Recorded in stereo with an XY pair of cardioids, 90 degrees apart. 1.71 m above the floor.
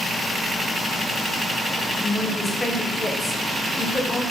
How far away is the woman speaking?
About 0.6 m.